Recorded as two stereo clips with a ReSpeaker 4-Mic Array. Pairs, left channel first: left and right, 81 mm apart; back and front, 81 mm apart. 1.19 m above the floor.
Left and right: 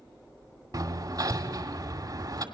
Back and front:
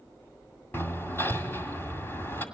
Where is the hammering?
120° right, 2 m.